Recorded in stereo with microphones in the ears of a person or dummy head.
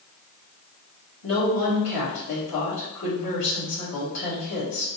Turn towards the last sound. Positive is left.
turn(degrees=85)